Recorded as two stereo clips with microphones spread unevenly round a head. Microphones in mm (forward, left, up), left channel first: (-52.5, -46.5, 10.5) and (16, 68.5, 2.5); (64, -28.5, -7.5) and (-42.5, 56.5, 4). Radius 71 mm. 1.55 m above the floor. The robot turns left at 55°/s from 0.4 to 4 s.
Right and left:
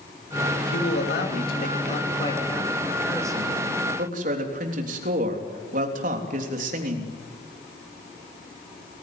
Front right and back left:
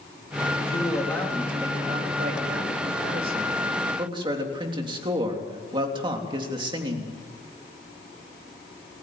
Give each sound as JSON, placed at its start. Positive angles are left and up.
{"t": 0.6, "sound": "a man speaking", "azimuth_deg": -90, "distance_m": 3.5}